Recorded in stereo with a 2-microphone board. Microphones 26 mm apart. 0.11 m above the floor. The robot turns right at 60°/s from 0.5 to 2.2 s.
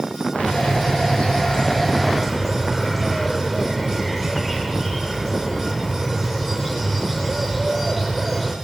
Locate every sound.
0.3 s a bird: 70° left, 9 m; by 8.6 s 170° left, 9 m